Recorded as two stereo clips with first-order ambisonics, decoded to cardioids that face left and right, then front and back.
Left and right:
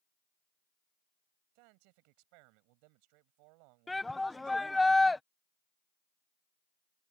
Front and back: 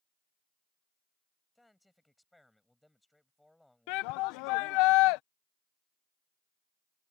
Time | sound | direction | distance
1.6 | a man speaking | 85° right | ?
3.9 | a shout | 5° left | ?